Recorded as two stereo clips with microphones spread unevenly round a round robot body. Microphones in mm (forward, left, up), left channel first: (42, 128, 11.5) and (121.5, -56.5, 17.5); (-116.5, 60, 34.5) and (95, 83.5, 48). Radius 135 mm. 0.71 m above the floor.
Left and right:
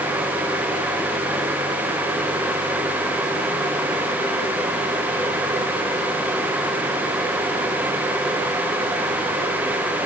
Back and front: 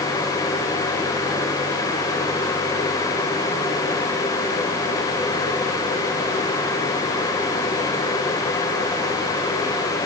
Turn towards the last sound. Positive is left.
No sound to turn to.